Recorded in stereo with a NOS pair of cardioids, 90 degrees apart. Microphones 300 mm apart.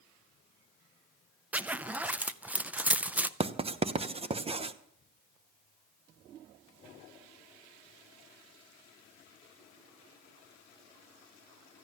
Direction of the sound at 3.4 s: 20° right.